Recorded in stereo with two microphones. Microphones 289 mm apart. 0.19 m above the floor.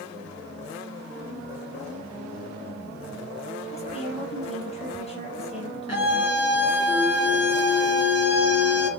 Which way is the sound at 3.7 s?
20° left (ahead or behind).